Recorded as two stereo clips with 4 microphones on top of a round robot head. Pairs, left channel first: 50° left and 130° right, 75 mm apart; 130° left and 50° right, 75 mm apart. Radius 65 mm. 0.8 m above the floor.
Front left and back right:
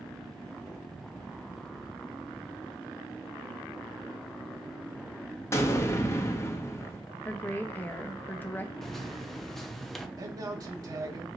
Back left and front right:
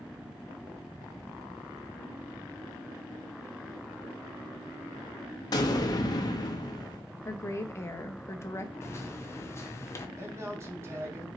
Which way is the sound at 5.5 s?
100° left.